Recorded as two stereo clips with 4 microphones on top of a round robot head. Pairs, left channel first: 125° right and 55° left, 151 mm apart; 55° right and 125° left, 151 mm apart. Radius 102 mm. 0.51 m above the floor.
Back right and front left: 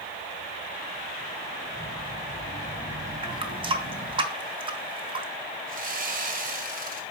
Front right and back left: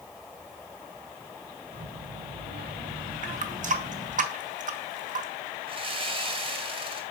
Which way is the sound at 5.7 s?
75° left.